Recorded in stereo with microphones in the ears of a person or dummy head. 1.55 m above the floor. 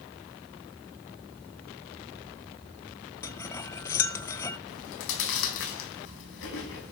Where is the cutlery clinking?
10° left (ahead or behind), 0.8 m.